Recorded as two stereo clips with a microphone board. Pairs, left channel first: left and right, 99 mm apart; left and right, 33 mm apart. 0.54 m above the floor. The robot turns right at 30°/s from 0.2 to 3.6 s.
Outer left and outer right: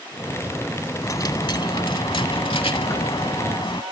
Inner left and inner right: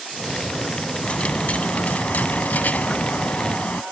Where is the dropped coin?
40° left; by 3.8 s 115° left.